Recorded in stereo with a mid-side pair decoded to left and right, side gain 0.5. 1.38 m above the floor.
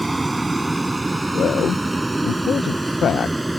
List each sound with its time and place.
0.0 s a vehicle: 15° right; by 3.6 s 10° right
1.4 s a man speaking: 50° left